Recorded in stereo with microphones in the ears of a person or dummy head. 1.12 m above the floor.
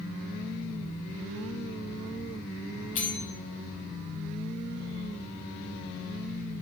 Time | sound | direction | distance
3.0 | a bell | 40° left (ahead or behind) | 1.0 m